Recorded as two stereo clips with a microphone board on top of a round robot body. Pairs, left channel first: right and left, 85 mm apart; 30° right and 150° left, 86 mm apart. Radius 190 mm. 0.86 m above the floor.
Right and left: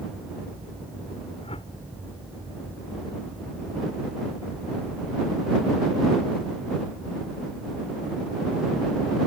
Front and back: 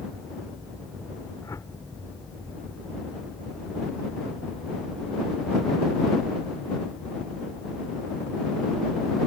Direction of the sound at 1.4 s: 85° right.